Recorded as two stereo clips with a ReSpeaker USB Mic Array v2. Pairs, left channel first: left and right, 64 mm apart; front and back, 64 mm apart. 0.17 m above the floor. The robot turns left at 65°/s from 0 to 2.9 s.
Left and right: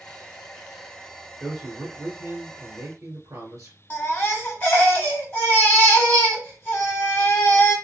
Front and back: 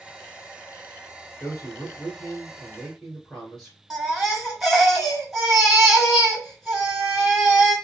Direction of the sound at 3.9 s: 105° left.